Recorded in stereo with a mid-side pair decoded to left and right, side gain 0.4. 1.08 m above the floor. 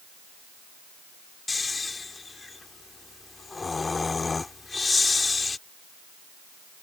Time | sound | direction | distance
1.5 | snoring | 30° left | ?